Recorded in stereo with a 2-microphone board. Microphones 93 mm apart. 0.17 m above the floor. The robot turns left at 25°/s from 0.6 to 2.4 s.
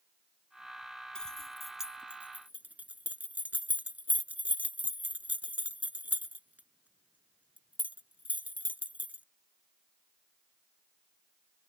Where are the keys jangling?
10° left (ahead or behind); by 9.2 s 15° right (ahead or behind).